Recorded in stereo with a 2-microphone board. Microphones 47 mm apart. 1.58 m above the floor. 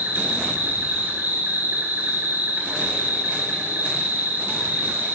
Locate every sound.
0.0 s an insect: 40° right (ahead or behind), 3.5 m